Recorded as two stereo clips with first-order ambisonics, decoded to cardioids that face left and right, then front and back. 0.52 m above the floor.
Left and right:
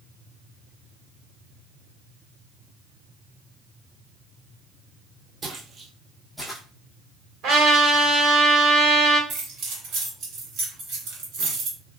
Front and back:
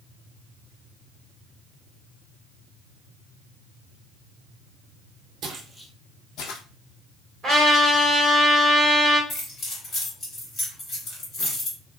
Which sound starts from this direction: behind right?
Footsteps, at 5.4 s.